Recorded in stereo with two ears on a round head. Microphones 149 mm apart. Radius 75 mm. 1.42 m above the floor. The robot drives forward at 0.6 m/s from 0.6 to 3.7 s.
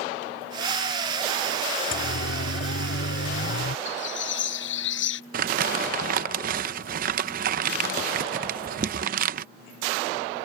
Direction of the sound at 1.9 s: 85° left.